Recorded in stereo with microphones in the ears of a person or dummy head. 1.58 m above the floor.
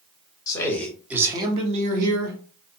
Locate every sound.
0.5 s a man speaking: 20° left (ahead or behind), 0.9 m; by 2.4 s 60° right (ahead or behind), 1.2 m